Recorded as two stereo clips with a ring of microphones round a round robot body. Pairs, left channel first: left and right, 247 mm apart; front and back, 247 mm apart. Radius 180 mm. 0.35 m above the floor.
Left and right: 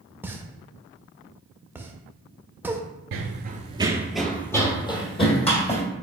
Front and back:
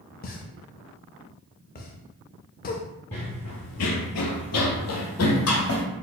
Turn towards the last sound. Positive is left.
turn(degrees=25)